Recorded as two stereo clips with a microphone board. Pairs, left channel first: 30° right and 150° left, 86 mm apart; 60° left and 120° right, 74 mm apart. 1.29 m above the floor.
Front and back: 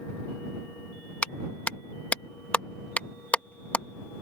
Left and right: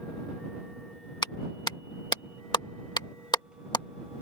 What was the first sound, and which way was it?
A clap, 40° left.